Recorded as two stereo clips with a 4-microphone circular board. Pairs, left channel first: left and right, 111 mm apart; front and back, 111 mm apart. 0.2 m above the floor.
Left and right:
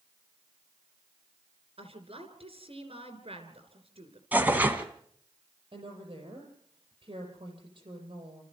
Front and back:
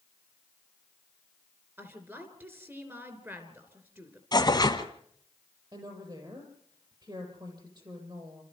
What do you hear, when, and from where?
1.8 s a woman speaking: 115° right, 3 m
4.3 s tearing paper: 25° right, 1.5 m
5.7 s a woman speaking: 130° right, 6.5 m